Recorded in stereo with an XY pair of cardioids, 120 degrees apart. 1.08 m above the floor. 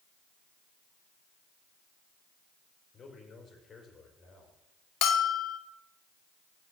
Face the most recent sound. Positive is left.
turn(degrees=70)